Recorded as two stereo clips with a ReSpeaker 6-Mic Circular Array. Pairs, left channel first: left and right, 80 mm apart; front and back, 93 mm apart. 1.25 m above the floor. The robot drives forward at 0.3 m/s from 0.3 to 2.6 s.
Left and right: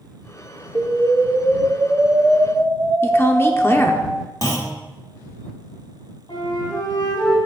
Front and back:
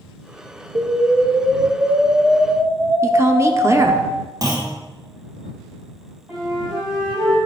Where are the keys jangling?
No keys jangling in this recording.